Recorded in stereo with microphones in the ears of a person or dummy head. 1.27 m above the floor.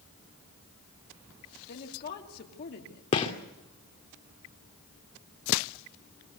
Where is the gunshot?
35° left (ahead or behind), 2 m.